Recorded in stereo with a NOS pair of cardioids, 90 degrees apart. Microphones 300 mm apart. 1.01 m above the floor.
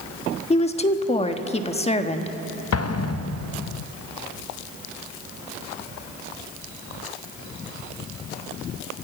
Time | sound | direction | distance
0.5 | a woman speaking | 20° left | 1.4 m
2.7 | an explosion | 55° left | 0.7 m